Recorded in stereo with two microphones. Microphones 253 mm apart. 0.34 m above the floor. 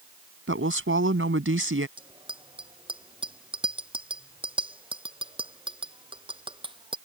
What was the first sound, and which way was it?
A woman speaking, 55° right (ahead or behind).